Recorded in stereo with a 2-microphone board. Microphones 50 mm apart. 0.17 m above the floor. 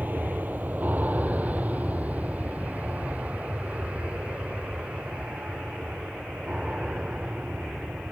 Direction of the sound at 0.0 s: 35° right (ahead or behind).